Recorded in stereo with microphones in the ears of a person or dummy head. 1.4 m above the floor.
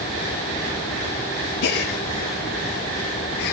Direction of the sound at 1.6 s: 55° left (ahead or behind).